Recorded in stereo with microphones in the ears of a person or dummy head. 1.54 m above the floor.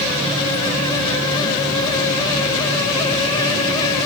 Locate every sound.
Only background noise.